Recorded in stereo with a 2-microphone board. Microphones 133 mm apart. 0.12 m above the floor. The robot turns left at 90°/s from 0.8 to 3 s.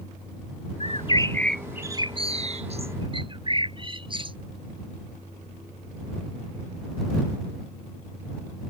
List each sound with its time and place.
0.8 s a bird: 70° left; by 4.4 s 130° right